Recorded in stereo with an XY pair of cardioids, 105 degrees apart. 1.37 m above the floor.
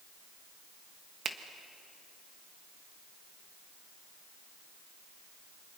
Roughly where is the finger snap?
Ahead right.